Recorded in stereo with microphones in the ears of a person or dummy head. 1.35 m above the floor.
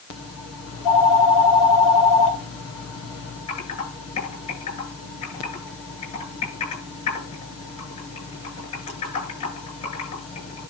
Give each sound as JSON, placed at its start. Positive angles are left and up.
{"t": 0.7, "sound": "a phone ringing", "side_deg": 35, "distance_m": 8.0}
{"t": 3.5, "sound": "typing on a keyboard", "side_deg": 35, "distance_m": 8.0}